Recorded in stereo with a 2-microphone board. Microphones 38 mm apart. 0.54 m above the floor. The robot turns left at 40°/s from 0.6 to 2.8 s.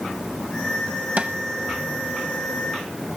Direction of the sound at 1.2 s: 40° right (ahead or behind).